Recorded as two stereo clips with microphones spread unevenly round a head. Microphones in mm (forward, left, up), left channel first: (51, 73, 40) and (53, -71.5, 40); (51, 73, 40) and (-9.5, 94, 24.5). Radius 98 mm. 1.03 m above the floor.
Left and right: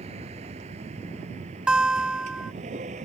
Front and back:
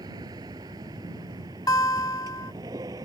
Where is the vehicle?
145° right.